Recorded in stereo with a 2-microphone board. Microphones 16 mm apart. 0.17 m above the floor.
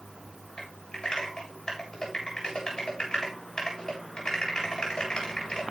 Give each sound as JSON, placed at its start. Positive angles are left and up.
{"t": 0.6, "sound": "typing on a keyboard", "side_deg": 55, "distance_m": 8.0}